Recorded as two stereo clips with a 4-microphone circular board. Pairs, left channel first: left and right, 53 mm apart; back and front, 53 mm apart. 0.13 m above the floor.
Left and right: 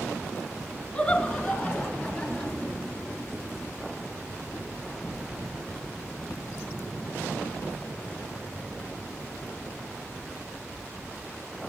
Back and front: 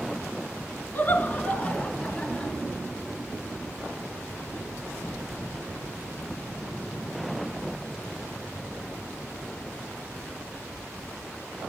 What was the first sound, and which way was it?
Laughter, 160° left.